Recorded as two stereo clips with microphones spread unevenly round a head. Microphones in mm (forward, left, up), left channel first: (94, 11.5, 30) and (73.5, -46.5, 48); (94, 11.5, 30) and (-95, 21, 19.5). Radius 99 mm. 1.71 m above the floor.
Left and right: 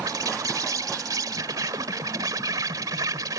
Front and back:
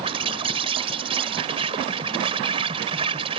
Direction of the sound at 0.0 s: 120° right.